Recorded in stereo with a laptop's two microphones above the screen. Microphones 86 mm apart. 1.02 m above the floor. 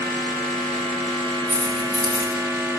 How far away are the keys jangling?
About 8 m.